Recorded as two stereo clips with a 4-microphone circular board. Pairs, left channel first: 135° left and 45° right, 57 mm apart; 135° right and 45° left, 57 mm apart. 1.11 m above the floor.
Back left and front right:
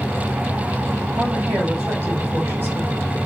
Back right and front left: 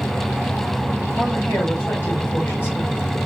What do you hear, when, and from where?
1.2 s a woman speaking: 85° right, 2.0 m